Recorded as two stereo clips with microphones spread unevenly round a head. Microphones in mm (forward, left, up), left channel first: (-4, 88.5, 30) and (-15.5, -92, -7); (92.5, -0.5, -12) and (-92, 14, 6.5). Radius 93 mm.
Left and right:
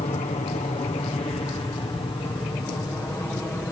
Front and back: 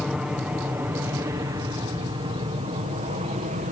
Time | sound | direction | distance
0.0 | an aircraft | 90° left | ?